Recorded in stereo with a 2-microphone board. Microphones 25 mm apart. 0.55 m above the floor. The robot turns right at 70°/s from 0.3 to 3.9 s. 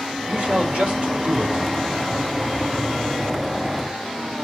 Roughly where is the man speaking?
Behind right.